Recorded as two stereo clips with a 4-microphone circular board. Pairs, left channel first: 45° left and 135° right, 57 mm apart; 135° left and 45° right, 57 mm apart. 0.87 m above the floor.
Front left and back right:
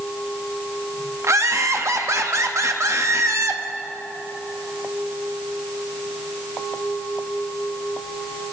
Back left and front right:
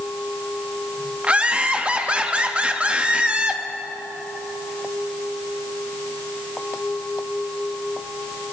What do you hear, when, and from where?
1.2 s laughter: 110° right, 1.0 m